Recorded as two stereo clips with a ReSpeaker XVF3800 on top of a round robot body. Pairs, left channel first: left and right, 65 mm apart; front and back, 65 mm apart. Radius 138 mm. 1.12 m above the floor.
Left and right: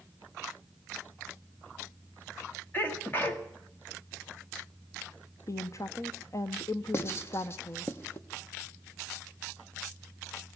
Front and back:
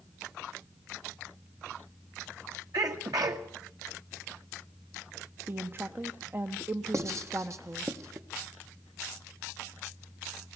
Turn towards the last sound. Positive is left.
turn(degrees=140)